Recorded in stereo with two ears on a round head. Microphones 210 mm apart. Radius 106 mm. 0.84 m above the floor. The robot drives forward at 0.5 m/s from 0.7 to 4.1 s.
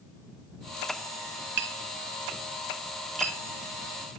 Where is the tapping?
50° right (ahead or behind), 1.5 m; by 3.4 s 30° right (ahead or behind), 2 m.